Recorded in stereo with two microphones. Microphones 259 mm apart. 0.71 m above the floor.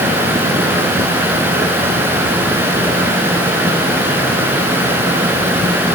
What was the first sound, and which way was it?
Only background noise.